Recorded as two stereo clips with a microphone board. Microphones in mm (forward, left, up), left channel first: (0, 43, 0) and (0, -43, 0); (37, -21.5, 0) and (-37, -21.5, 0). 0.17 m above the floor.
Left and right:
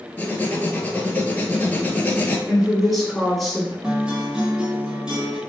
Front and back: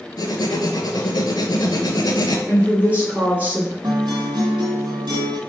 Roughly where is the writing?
Ahead.